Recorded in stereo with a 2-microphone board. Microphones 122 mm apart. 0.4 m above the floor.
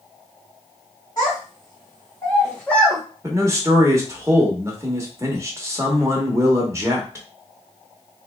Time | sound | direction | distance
1.2 | a child speaking | 35° left (ahead or behind) | 1.4 m
3.2 | a man speaking | 25° right (ahead or behind) | 0.9 m